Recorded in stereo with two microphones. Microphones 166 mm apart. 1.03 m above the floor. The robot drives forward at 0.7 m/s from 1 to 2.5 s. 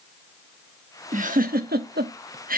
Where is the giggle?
50° right (ahead or behind), 1.0 m; by 2.6 s 60° right (ahead or behind), 0.8 m.